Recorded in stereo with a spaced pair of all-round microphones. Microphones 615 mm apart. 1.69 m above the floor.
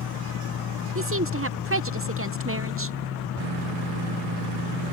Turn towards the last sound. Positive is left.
turn(degrees=-20)  # may be behind; listen again after turning